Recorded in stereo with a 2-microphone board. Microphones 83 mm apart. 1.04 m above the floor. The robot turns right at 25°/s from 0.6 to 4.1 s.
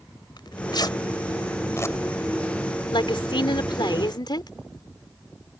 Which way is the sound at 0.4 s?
65° left (ahead or behind).